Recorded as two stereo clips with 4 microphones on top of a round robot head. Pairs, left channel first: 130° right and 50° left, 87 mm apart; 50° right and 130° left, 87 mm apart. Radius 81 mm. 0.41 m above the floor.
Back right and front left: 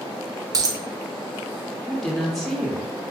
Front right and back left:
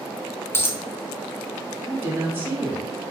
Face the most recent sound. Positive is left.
turn(degrees=140)